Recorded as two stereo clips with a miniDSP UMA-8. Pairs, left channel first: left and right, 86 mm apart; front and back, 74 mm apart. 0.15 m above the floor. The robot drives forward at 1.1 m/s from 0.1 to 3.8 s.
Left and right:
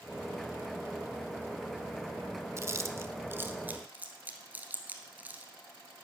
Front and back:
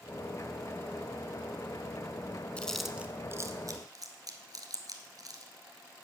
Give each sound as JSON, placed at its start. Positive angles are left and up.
{"t": 2.6, "sound": "chewing", "azimuth_deg": -65, "distance_m": 0.8}